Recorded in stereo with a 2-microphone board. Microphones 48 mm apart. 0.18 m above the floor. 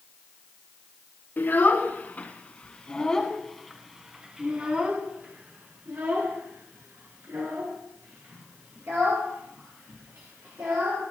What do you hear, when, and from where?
1.4 s a child speaking: 45° left (ahead or behind), 1.7 m; by 11.0 s 75° right (ahead or behind), 4 m